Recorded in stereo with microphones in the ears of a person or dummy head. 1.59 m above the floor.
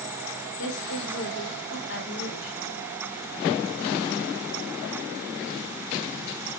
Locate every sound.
0.6 s a woman speaking: 80° left, 6.5 m